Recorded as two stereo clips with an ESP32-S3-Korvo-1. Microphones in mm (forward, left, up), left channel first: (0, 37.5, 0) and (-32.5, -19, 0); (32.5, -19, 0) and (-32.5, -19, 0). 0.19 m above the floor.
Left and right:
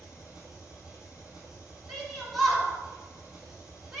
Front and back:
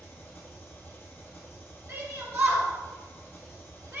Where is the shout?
155° left, 2.5 m.